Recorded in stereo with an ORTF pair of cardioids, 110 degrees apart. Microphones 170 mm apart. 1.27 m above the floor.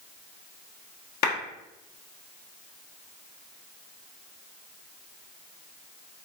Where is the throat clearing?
I don't hear throat clearing.